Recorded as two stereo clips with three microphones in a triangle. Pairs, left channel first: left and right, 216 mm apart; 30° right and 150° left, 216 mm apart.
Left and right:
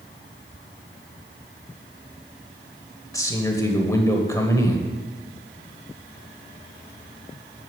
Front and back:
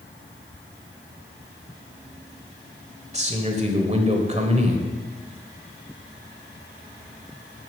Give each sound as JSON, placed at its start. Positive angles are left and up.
{"t": 3.1, "sound": "a man speaking", "azimuth_deg": 150, "distance_m": 1.2}